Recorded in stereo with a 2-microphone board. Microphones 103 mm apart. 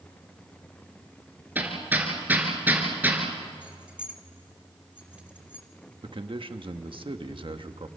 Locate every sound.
1.6 s hammering: 20° right (ahead or behind), 4 m
3.6 s keys jangling: 15° right (ahead or behind), 2.0 m
6.0 s a man speaking: 55° right (ahead or behind), 1.3 m